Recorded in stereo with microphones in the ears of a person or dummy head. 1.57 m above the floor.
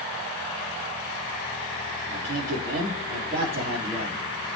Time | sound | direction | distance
2.1 | a man speaking | 45° right (ahead or behind) | 3.5 m